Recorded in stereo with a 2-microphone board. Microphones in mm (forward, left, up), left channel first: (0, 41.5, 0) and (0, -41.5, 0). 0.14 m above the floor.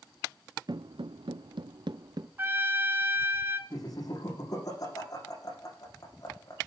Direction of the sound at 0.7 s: 60° right (ahead or behind).